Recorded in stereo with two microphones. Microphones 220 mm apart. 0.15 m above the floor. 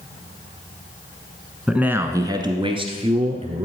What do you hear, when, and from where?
1.7 s a man speaking: 5° right (ahead or behind), 1.1 m; by 3.6 s 30° right (ahead or behind), 2.5 m